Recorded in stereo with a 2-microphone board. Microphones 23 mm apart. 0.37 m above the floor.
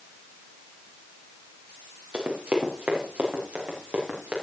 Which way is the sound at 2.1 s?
65° right (ahead or behind).